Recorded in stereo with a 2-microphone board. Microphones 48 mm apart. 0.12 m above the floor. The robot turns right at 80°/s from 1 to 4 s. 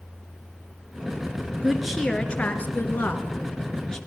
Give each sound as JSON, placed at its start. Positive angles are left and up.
{"t": 1.6, "sound": "a woman speaking", "azimuth_deg": -20, "distance_m": 2.0}